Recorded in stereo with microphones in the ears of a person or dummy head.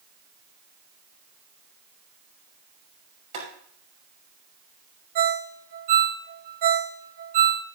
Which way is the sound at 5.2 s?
50° right (ahead or behind).